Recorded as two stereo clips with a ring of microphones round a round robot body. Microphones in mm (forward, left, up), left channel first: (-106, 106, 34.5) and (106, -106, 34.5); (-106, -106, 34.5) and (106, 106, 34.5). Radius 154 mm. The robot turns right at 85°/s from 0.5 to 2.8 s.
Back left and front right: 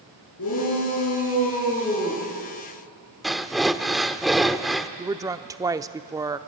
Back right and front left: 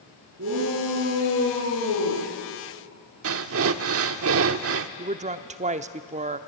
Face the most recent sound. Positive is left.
turn(degrees=20)